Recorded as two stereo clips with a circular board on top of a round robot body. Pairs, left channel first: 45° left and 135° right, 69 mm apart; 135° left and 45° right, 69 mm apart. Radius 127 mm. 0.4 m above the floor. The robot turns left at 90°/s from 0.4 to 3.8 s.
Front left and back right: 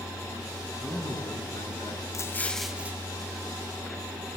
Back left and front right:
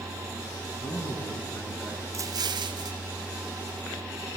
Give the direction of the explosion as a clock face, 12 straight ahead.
12 o'clock.